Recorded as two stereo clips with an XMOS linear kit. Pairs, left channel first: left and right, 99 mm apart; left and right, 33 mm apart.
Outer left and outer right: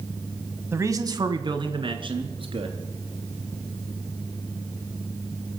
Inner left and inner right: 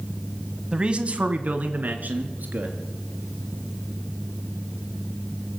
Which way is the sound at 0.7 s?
25° right (ahead or behind).